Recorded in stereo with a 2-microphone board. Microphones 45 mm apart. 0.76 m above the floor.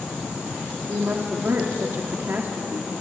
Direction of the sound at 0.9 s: 60° right (ahead or behind).